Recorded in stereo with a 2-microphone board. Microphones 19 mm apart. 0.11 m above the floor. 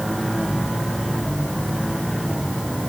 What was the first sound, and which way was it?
Only background noise.